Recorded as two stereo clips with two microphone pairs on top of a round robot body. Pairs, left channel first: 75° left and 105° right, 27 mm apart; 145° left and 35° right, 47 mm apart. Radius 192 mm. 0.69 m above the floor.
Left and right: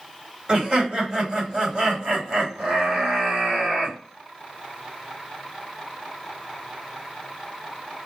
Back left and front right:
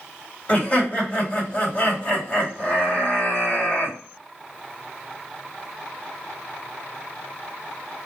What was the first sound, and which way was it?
Laughter, 170° right.